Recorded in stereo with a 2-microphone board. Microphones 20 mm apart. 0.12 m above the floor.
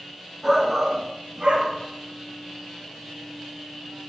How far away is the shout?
About 1.4 m.